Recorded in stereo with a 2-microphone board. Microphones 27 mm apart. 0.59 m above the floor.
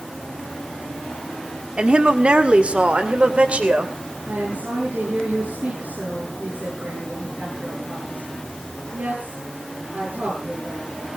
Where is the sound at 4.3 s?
75° right (ahead or behind), 8.5 m.